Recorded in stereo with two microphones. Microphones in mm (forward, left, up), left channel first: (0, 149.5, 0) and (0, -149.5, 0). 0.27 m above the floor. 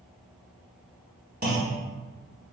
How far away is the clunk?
About 0.9 m.